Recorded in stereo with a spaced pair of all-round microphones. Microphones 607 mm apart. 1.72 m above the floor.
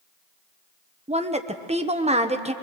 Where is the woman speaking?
10° right (ahead or behind), 1.0 m.